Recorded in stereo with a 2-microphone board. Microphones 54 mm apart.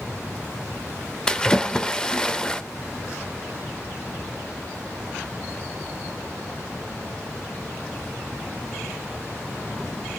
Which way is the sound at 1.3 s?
15° left (ahead or behind).